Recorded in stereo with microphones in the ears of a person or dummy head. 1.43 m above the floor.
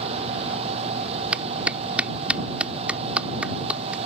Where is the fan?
35° right (ahead or behind).